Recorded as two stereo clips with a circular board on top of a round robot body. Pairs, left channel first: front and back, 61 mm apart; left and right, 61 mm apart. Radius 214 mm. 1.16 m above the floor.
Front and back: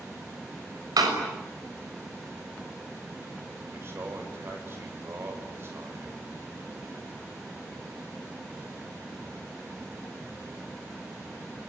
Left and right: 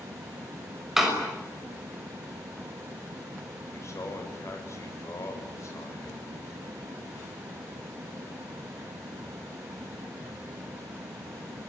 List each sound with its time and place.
1.0 s a door slam: 175° right, 6 m
3.7 s a man speaking: 130° left, 7 m